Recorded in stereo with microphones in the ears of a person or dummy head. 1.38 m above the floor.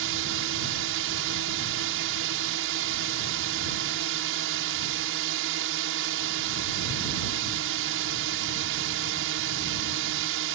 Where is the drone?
70° right (ahead or behind).